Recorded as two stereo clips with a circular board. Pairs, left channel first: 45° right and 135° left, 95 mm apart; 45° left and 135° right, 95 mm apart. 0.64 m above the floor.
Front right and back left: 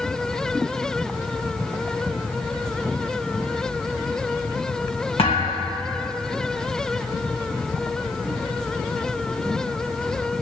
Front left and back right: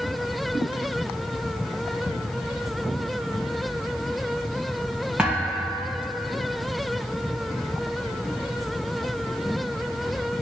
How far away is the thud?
About 2.5 m.